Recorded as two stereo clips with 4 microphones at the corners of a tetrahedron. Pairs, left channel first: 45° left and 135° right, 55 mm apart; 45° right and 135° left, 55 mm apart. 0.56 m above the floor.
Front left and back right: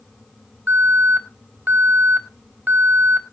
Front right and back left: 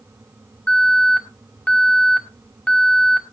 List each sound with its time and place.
0.7 s an alarm: 105° right, 2.5 m